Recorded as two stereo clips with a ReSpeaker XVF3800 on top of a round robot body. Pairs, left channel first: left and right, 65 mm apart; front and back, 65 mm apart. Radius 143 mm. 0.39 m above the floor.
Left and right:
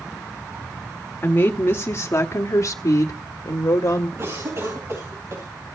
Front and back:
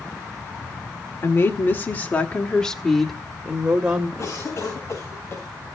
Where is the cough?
50° right, 4 m.